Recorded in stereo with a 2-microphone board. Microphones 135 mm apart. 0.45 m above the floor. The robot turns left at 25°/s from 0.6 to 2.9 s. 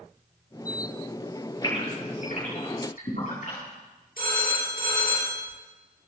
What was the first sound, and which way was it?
A gasp, 35° left (ahead or behind).